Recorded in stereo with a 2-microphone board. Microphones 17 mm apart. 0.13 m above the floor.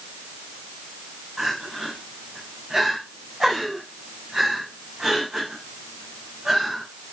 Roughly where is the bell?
No bell in this recording.